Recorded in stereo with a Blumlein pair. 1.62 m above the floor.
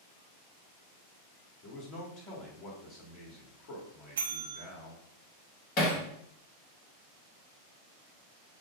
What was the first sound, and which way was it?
A man speaking, 40° left.